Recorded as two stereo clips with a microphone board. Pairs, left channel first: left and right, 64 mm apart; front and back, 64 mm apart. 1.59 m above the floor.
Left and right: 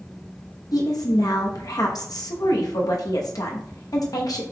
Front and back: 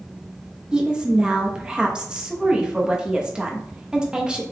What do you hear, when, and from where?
0.7 s a woman speaking: 105° left, 1.0 m